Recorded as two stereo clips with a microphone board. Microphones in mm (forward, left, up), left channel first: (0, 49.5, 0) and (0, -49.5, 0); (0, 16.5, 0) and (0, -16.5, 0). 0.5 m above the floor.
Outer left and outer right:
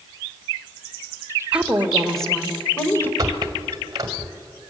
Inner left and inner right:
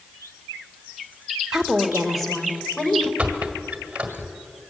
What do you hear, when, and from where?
1.5 s a woman speaking: 15° right (ahead or behind), 1.9 m; by 3.1 s 20° left (ahead or behind), 2.5 m
3.2 s a squeak: 40° right (ahead or behind), 1.9 m